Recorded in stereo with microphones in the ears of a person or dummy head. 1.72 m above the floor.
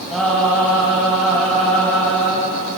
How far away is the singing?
About 3.5 m.